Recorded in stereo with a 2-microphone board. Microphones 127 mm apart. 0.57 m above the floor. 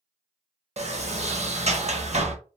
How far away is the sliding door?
About 0.5 m.